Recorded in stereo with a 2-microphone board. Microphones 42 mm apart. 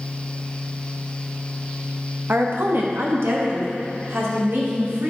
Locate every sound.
2.3 s a woman speaking: 60° right (ahead or behind), 1.1 m; by 5.1 s 75° right (ahead or behind), 2.5 m